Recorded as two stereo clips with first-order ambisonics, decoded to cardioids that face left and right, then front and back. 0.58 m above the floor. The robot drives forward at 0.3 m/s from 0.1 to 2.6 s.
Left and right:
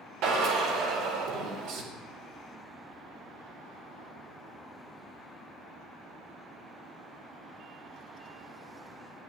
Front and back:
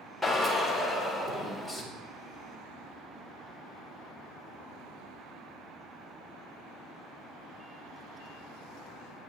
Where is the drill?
90° right, 2 m; by 1.8 s 105° right, 2 m.